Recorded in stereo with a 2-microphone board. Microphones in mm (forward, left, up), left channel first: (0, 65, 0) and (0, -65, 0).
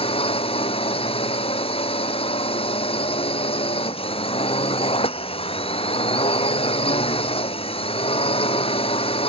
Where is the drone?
45° left (ahead or behind).